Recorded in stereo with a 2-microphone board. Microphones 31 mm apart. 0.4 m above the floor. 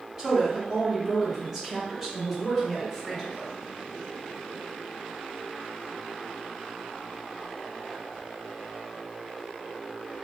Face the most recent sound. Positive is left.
turn(degrees=5)  # may be behind; listen again after turning